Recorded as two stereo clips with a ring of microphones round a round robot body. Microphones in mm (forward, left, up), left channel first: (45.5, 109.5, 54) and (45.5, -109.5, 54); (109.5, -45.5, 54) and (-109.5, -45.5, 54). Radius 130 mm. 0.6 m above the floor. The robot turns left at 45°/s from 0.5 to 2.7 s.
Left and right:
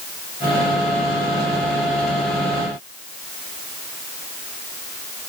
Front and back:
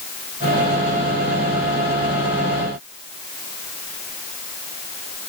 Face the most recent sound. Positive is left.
No sound to turn to.